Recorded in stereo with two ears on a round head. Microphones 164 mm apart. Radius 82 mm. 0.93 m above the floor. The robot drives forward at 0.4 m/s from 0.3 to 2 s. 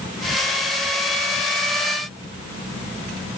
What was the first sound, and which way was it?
Only background noise.